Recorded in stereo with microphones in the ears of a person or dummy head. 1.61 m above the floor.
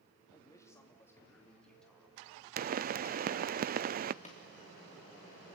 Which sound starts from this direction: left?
A pop, at 4.2 s.